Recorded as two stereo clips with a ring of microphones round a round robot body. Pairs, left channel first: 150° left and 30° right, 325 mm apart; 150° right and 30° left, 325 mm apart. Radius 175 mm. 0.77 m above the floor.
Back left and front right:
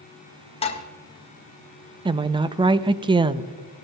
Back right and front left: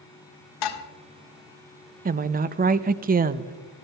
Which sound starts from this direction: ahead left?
A woman speaking, at 2.0 s.